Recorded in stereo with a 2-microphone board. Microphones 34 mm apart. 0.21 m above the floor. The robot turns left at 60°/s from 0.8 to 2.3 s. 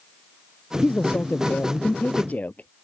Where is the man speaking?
140° left; by 2.7 s 50° left.